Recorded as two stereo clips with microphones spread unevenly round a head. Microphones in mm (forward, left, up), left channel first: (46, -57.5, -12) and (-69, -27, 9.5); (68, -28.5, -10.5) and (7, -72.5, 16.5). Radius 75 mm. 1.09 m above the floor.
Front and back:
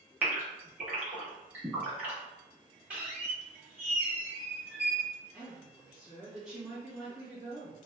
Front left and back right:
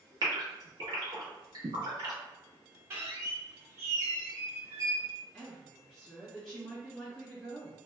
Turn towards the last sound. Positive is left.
turn(degrees=65)